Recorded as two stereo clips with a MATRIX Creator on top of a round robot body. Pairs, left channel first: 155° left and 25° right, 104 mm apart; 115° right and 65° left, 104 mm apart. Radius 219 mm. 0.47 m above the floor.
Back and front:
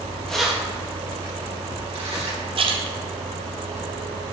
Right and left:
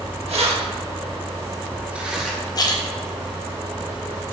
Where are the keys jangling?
75° left, 1.7 m; by 2.4 s 20° right, 2.5 m.